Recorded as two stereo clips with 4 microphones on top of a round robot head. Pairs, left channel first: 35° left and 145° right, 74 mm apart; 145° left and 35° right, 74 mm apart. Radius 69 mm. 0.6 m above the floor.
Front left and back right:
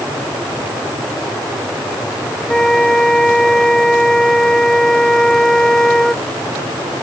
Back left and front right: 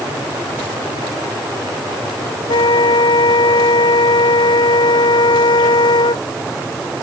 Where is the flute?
120° left.